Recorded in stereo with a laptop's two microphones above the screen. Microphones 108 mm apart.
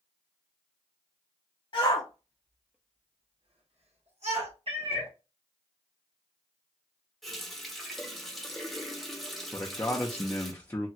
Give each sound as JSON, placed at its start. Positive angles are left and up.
{"t": 1.7, "sound": "a shout", "side_deg": 45, "distance_m": 0.9}
{"t": 4.7, "sound": "a cat meowing", "side_deg": -55, "distance_m": 0.9}
{"t": 7.2, "sound": "a running tap", "side_deg": 0, "distance_m": 0.6}
{"t": 9.5, "sound": "a man speaking", "side_deg": 25, "distance_m": 0.6}